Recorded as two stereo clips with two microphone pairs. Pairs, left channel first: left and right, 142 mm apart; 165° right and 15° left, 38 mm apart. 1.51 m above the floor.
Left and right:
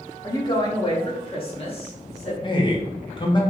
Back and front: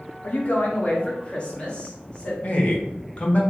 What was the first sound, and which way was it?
A woman speaking, 155° left.